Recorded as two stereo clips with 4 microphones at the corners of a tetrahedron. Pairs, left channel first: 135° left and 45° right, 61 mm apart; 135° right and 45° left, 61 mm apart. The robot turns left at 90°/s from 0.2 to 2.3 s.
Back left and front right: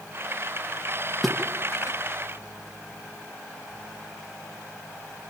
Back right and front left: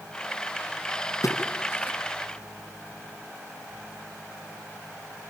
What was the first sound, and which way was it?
A splash, 135° right.